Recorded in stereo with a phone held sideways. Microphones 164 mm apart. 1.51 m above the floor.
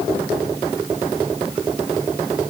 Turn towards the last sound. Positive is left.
No sound to turn to.